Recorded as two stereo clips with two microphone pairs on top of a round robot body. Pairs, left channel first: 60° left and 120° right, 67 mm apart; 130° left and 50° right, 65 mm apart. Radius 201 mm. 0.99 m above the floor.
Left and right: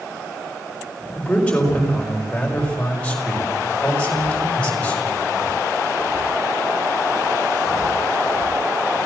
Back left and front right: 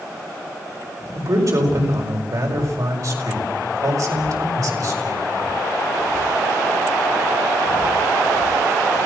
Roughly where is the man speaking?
Ahead.